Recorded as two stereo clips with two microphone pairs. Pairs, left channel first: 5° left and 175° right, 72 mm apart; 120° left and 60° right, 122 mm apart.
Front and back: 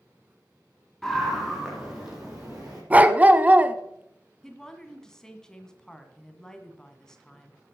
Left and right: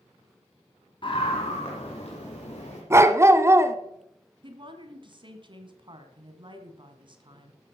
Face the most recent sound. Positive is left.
turn(degrees=-75)